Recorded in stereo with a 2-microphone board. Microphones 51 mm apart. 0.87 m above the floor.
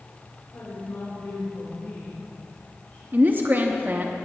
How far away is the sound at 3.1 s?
About 0.8 m.